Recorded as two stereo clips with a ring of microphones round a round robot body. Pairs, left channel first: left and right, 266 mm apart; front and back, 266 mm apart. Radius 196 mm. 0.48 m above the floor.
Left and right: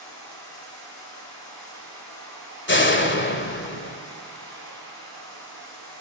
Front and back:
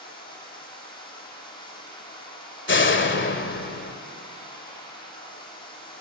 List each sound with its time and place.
0.0 s running water: 75° left, 8.5 m
2.7 s a door slam: 45° left, 1.9 m